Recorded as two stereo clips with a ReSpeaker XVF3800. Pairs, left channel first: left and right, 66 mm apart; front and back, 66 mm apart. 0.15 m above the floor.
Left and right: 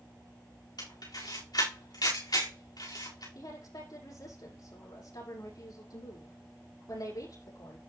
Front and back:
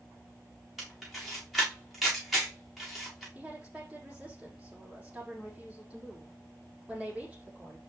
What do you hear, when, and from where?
0.8 s a camera shutter: 90° left, 6.5 m
3.4 s a woman speaking: 110° left, 7 m